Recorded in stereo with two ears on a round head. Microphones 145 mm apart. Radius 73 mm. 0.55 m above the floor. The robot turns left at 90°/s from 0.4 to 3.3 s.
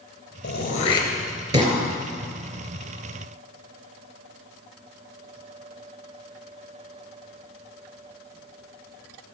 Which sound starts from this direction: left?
Throat clearing, at 0.4 s.